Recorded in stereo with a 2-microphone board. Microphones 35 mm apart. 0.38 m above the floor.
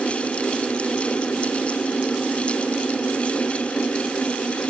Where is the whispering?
No whispering in this recording.